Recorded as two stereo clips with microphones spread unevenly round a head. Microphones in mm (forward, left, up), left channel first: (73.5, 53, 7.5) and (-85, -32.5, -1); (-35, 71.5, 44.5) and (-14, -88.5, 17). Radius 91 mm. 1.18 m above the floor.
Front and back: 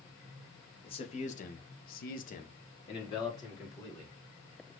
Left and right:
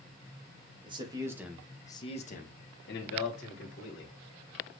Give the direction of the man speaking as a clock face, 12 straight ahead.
1 o'clock.